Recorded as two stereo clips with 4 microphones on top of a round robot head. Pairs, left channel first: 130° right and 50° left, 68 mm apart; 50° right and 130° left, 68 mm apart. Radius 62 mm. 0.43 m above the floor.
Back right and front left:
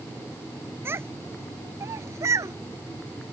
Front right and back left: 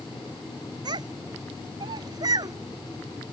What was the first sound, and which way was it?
A child speaking, 110° left.